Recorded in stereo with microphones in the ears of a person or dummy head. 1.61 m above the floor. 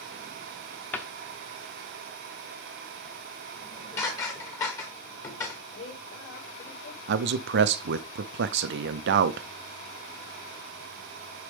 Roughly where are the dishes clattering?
Left.